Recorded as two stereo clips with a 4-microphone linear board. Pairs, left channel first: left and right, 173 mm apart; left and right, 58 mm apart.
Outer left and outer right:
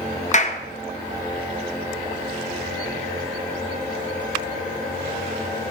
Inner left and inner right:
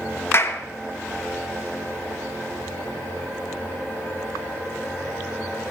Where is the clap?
45° left (ahead or behind), 0.9 m.